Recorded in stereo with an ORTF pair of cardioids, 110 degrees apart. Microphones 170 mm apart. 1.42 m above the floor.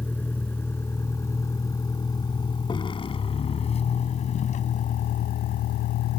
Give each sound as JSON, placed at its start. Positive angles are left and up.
{"t": 0.0, "sound": "a vehicle", "azimuth_deg": 10}